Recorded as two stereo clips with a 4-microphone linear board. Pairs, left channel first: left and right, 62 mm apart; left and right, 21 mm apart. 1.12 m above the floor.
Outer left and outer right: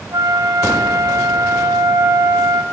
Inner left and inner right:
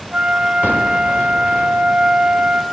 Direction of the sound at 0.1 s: 70° right (ahead or behind).